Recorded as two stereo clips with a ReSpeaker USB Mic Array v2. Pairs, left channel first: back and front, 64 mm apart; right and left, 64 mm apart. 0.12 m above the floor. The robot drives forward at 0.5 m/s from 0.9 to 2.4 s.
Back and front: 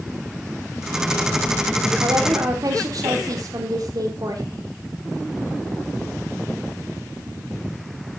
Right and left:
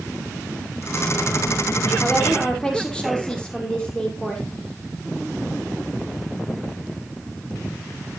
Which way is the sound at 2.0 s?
10° right.